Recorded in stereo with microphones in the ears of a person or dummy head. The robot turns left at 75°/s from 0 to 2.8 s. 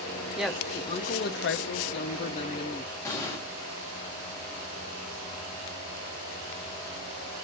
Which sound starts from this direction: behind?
A woman speaking, at 0.4 s.